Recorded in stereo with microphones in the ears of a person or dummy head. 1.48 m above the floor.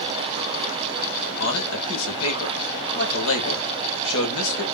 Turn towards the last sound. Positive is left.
turn(degrees=70)  # may be behind; listen again after turning